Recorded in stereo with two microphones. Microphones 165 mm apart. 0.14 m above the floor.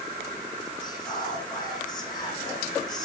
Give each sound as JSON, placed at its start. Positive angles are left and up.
{"t": 0.8, "sound": "whispering", "side_deg": 25, "distance_m": 6.0}